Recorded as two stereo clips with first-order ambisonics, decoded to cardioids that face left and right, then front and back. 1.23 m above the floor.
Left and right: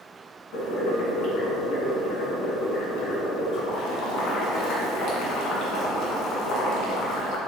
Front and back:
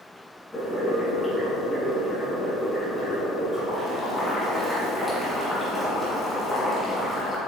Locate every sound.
0.5 s boiling: 80° left, 1.9 m